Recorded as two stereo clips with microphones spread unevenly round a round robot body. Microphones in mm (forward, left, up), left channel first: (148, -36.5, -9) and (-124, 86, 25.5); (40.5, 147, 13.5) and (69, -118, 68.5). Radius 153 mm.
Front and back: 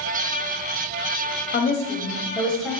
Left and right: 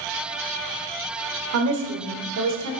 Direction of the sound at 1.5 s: 65° right.